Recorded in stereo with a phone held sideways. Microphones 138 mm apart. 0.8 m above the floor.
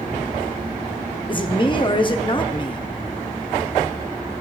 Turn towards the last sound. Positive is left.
turn(degrees=35)  # may be behind; listen again after turning